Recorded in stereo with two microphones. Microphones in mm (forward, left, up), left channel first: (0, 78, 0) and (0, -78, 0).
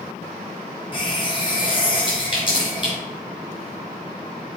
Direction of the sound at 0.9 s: 30° left (ahead or behind).